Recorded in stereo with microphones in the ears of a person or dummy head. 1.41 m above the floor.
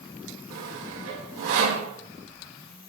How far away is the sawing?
About 1.7 m.